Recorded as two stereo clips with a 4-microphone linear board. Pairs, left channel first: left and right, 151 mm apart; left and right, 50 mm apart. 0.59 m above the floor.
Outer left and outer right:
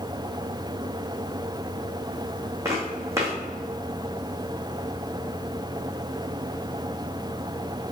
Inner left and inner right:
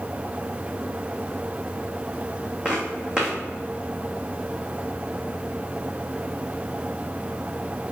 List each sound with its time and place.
2.6 s footsteps: 20° right (ahead or behind), 2.5 m